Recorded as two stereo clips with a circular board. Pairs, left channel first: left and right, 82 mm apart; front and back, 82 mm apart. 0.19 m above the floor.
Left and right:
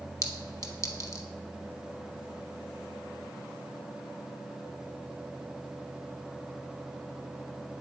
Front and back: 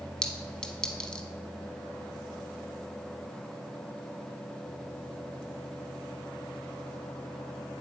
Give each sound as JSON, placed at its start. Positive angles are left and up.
{"t": 0.2, "sound": "a clink", "azimuth_deg": 75, "distance_m": 0.7}